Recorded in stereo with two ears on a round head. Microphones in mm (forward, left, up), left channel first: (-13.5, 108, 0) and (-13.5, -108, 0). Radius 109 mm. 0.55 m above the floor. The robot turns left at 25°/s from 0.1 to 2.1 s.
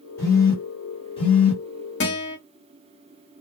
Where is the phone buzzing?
10° left (ahead or behind), 1.4 m; by 1.6 s 30° left (ahead or behind), 1.4 m.